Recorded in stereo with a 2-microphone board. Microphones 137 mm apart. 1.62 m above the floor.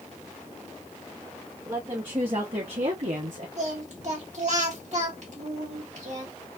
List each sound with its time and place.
1.6 s a woman speaking: 30° right (ahead or behind), 1.5 m; by 3.5 s 65° right (ahead or behind), 1.0 m
3.6 s singing: 55° right (ahead or behind), 1.6 m